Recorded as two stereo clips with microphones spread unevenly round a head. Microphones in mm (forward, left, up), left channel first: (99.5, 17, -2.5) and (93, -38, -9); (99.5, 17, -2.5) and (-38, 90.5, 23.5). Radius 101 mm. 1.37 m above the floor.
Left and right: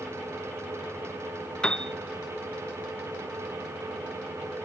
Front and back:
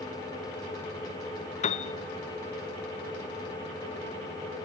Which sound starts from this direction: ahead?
A piano, at 1.6 s.